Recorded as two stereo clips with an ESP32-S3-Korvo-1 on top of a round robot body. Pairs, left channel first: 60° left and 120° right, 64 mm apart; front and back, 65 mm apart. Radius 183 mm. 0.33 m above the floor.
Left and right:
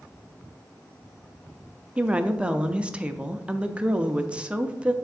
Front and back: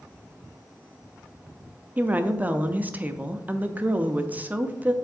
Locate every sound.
2.0 s a woman speaking: 165° right, 0.8 m